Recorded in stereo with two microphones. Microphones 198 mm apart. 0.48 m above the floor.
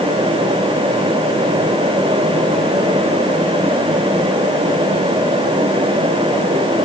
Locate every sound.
Only background noise.